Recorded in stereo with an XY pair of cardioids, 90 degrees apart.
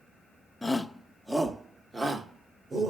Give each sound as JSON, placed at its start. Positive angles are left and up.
{"t": 0.6, "sound": "a shout", "azimuth_deg": 10, "distance_m": 1.2}